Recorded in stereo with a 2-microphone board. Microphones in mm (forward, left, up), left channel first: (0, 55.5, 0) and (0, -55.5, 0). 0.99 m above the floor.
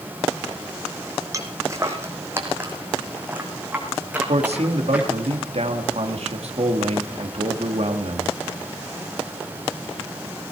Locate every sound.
1.3 s footsteps: 30° right (ahead or behind), 2 m; by 5.3 s 5° right (ahead or behind), 4.5 m
4.3 s a man speaking: 70° right (ahead or behind), 2 m